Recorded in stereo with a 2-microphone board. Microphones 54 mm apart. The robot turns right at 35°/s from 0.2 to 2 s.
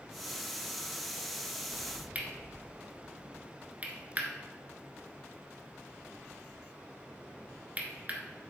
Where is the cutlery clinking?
30° right (ahead or behind), 1.0 m.